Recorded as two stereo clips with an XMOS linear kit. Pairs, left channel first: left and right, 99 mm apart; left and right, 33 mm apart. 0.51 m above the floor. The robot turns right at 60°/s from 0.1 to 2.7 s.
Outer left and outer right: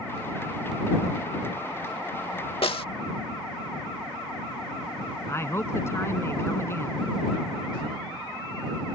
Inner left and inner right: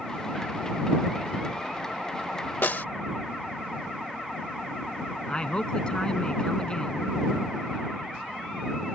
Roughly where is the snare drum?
Left.